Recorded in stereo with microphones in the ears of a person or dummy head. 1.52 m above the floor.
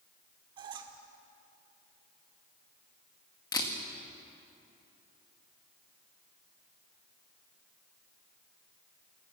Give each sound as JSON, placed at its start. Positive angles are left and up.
{"t": 0.6, "sound": "a squeak", "side_deg": -30, "distance_m": 1.5}
{"t": 3.5, "sound": "a camera shutter", "side_deg": 20, "distance_m": 2.0}